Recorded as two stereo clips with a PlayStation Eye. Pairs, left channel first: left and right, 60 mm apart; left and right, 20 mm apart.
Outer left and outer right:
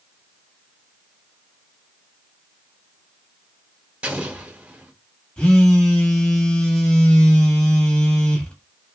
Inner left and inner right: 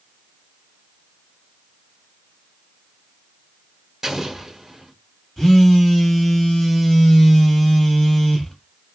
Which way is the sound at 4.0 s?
20° right (ahead or behind).